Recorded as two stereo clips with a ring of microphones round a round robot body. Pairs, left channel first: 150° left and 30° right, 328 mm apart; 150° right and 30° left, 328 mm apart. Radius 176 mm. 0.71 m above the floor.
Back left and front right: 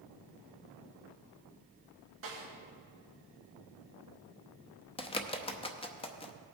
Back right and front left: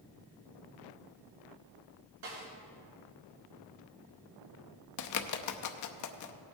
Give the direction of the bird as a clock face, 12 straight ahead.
5 o'clock.